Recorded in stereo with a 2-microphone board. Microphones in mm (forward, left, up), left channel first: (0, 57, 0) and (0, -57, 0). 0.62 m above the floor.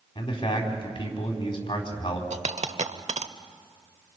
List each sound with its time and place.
0.1 s a man speaking: 45° left (ahead or behind), 4 m
2.3 s a dropped coin: 85° right, 0.8 m